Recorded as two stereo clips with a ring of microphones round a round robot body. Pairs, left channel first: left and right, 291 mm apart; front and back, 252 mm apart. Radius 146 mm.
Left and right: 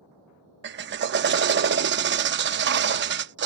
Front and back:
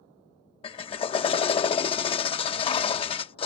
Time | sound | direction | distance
0.6 | a drill | 60° right | ?